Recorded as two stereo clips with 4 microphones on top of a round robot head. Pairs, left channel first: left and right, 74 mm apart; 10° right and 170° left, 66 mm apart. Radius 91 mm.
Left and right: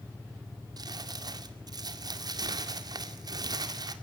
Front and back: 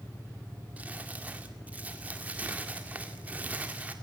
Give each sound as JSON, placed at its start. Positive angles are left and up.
{"t": 0.8, "sound": "crumpling", "azimuth_deg": -120, "distance_m": 2.0}